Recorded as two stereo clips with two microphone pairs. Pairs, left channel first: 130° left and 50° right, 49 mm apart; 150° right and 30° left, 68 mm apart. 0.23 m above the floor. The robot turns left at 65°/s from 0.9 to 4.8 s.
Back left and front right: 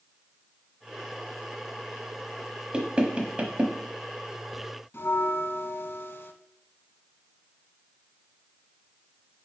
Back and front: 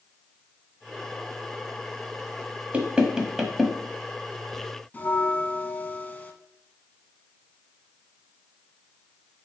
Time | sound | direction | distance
2.7 | knocking | 10° right | 1.1 m
4.9 | a bell | 155° left | 0.7 m